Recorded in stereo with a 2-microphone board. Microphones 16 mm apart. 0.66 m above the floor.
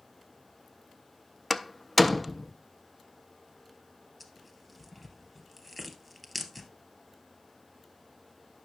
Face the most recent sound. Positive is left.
turn(degrees=5)  # may be behind; listen again after turning